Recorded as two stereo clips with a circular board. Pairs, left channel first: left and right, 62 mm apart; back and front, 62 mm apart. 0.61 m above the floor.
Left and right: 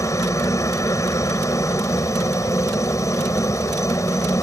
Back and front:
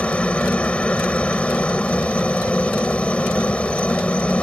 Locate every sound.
0.0 s a helicopter: 110° left